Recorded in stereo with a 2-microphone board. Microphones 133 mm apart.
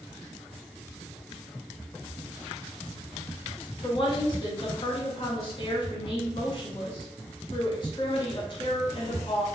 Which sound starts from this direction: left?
A woman speaking, at 3.8 s.